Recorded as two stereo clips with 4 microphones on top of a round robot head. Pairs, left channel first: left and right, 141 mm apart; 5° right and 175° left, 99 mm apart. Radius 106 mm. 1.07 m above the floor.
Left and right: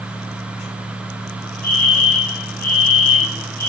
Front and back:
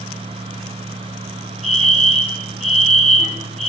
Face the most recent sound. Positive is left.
turn(degrees=90)